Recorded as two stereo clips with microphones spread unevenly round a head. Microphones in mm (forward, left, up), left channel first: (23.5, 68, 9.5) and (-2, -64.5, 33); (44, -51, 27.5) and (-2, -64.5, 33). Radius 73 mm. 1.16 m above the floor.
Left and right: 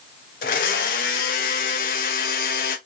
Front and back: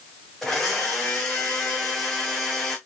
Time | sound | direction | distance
0.4 | a blender | 110° left | 0.6 m